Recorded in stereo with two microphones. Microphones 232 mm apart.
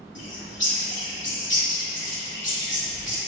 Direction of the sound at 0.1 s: 55° left (ahead or behind).